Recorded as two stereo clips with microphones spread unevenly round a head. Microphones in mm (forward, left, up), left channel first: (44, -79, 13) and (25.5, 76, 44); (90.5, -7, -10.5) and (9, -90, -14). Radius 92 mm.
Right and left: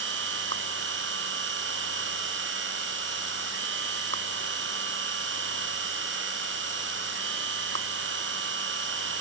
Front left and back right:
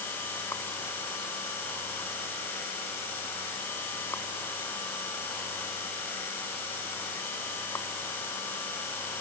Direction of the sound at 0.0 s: 125° left.